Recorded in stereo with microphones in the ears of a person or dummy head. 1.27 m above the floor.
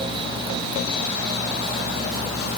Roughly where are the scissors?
No scissors in this recording.